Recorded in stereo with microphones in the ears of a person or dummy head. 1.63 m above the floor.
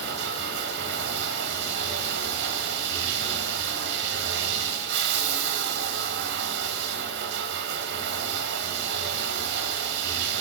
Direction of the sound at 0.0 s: 65° right (ahead or behind).